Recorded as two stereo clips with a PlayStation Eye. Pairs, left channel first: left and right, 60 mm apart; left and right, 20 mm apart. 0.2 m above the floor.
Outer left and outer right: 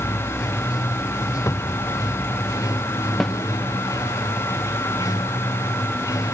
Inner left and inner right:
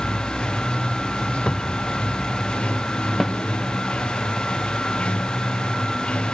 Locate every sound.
0.0 s running water: 80° left
1.5 s a cupboard door: 55° left (ahead or behind)
3.2 s a snare drum: 5° left (ahead or behind)